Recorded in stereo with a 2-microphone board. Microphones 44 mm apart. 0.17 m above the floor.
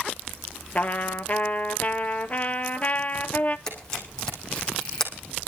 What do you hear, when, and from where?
0.8 s a trumpet: 35° left (ahead or behind), 0.9 m
3.7 s a camera shutter: 15° left (ahead or behind), 4 m